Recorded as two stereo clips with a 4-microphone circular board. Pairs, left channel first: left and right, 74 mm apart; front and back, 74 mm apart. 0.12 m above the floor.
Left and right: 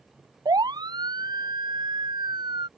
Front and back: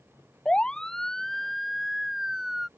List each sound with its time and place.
0.5 s a siren: 75° right; by 2.7 s 95° right